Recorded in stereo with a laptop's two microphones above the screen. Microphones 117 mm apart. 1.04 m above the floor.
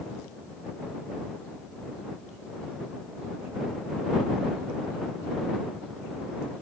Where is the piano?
I don't hear a piano.